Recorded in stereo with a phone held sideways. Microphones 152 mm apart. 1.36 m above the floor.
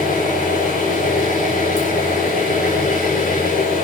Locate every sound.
0.0 s an engine running: 75° left (ahead or behind), 6.5 m